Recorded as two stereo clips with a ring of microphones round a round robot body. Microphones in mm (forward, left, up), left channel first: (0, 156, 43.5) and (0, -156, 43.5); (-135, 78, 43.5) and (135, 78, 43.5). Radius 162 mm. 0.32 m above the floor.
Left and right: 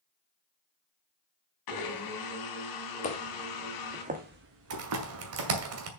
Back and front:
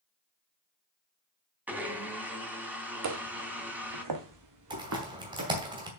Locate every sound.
1.7 s a blender: 85° left, 2.5 m
3.0 s footsteps: 20° left, 1.6 m; by 5.6 s 60° right, 2.5 m
4.7 s typing on a keyboard: 70° right, 2 m